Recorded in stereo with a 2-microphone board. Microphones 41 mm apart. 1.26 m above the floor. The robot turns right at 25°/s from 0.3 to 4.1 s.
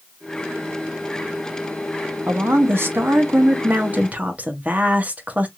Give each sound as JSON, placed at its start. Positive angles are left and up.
{"t": 2.3, "sound": "a woman speaking", "azimuth_deg": -85, "distance_m": 0.8}